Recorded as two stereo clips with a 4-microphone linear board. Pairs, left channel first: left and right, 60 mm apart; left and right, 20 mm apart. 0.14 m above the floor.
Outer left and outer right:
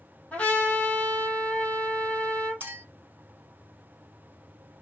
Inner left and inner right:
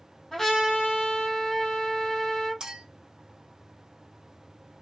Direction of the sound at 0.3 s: 20° left (ahead or behind).